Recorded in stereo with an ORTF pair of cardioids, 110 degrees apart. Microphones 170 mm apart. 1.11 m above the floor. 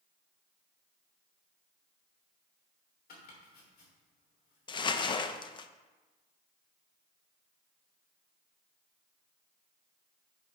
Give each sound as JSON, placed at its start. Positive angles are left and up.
{"t": 3.1, "sound": "chopping", "azimuth_deg": 65, "distance_m": 2.5}
{"t": 4.7, "sound": "crumpling", "azimuth_deg": 30, "distance_m": 0.5}